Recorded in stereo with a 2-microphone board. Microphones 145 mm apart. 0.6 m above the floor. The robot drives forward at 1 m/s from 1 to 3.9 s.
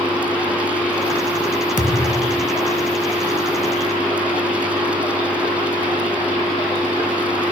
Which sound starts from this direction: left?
A thud, at 1.8 s.